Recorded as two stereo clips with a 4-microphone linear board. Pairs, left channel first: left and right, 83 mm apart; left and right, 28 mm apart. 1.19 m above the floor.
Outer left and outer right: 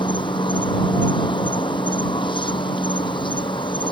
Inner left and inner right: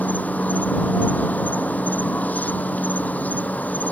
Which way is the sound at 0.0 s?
85° left.